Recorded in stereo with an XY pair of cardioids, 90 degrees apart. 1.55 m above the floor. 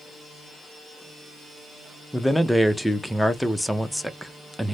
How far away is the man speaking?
About 0.7 m.